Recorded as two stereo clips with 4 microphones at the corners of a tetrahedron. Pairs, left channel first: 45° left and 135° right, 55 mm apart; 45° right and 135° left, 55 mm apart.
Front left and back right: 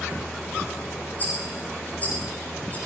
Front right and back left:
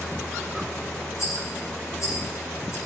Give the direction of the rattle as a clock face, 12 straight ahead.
12 o'clock.